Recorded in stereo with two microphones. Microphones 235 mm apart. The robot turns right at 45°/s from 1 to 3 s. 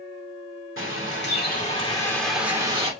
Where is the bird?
120° left, 1.7 m; by 2.9 s 155° right, 1.7 m.